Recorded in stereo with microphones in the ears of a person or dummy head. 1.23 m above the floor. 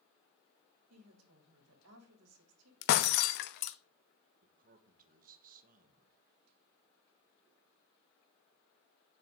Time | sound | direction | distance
0.9 | a woman speaking | 80° right | 3.5 m
2.8 | breaking glass | 60° left (ahead or behind) | 0.8 m
4.4 | a man speaking | 50° right (ahead or behind) | 1.4 m